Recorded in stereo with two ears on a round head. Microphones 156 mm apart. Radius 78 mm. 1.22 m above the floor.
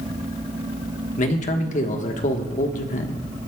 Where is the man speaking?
45° left (ahead or behind), 1.4 m.